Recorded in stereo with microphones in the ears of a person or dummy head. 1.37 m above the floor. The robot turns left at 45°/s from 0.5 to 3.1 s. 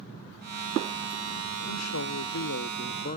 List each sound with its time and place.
1.7 s a man speaking: 105° left, 0.8 m; by 3.2 s 40° left, 0.8 m